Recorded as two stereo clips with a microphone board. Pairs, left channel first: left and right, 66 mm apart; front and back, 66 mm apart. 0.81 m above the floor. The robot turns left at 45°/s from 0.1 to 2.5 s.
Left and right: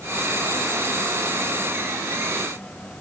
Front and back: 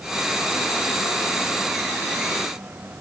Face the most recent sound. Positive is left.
No sound to turn to.